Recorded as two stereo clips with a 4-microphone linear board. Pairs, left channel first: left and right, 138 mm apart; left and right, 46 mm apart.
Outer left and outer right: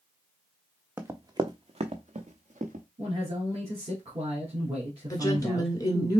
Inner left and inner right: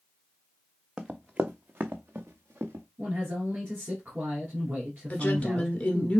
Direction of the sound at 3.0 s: 50° right (ahead or behind).